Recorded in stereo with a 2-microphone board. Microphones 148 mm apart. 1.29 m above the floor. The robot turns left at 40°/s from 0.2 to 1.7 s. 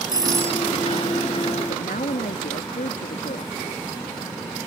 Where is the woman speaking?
65° left (ahead or behind); by 3.6 s 70° left (ahead or behind).